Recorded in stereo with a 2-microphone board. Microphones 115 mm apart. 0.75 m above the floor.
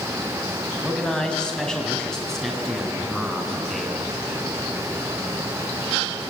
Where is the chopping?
I don't hear chopping.